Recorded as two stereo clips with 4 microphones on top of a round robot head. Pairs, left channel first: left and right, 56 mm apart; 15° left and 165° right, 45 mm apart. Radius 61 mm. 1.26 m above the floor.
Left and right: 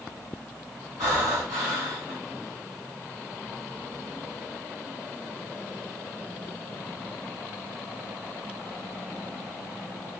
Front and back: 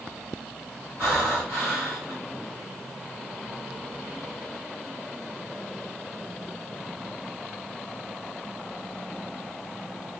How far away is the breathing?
About 1.5 m.